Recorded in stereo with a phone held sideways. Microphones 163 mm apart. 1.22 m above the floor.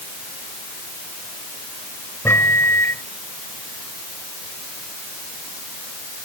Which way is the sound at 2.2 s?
15° left (ahead or behind).